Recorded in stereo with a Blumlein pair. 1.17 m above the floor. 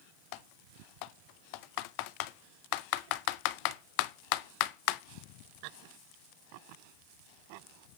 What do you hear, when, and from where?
0.3 s typing on a keyboard: 45° left, 0.5 m